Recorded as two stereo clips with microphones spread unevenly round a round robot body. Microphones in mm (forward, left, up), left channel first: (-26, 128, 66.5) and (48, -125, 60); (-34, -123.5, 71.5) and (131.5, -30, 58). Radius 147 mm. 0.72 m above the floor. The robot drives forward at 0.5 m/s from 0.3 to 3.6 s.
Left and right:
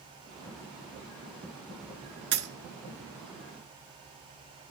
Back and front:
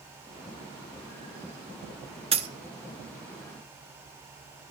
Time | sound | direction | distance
2.3 | a dropped coin | 25° right | 1.0 m